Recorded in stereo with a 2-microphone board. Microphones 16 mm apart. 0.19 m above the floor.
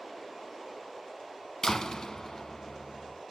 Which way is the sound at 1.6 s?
45° left (ahead or behind).